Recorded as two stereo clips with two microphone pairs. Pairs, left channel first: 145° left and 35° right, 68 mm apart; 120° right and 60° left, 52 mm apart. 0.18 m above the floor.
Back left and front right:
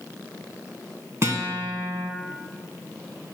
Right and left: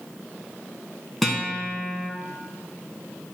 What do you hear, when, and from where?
1.2 s a guitar: 30° right, 2.0 m